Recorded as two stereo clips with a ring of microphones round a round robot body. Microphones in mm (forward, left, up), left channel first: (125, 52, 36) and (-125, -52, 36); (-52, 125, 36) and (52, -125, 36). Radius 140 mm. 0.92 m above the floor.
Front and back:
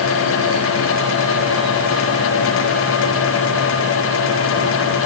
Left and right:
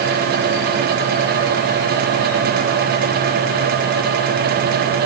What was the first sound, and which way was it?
Only background noise.